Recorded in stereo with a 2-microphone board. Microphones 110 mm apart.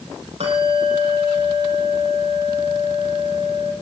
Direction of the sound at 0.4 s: 70° right (ahead or behind).